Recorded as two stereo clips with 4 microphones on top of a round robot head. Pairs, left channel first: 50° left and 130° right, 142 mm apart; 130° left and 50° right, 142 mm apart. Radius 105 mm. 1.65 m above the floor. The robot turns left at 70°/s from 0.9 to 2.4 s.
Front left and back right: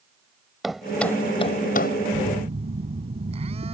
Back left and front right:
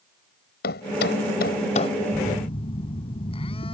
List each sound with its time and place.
0.6 s a thud: 140° left; by 2.0 s 65° left
2.1 s a phone buzzing: 160° right; by 3.7 s straight behind